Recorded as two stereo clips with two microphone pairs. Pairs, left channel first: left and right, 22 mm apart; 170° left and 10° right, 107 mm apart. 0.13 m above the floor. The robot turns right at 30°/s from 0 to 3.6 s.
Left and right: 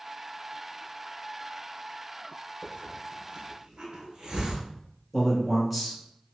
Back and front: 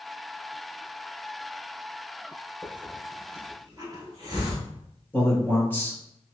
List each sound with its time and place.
2.6 s a hiss: 85° right, 1.2 m; by 4.6 s 55° right, 1.2 m
5.1 s a man speaking: 155° right, 1.3 m